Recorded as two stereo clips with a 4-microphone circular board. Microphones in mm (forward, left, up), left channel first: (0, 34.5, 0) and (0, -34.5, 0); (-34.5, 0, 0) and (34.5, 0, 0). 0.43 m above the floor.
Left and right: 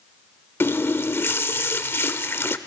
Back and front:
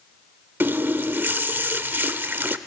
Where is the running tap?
50° left, 0.7 m.